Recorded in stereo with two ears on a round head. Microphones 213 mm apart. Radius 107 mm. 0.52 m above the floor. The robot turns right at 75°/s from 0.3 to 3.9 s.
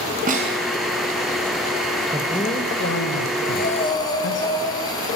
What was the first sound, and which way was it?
A snare drum, 35° right (ahead or behind).